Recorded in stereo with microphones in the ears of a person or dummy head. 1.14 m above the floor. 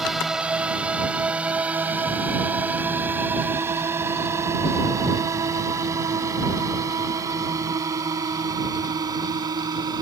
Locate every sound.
0.0 s a drone: centre (ahead or behind); by 10.0 s 20° right (ahead or behind)